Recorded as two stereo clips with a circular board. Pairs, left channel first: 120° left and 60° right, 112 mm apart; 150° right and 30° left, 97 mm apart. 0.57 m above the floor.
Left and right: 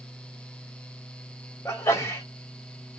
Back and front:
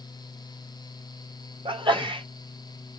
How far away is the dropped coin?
I don't hear a dropped coin.